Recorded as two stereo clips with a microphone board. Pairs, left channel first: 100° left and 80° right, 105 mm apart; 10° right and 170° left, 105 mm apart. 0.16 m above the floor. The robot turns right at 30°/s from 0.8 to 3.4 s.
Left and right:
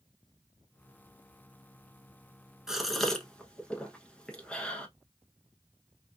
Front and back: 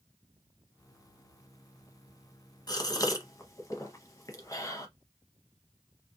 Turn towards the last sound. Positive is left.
turn(degrees=25)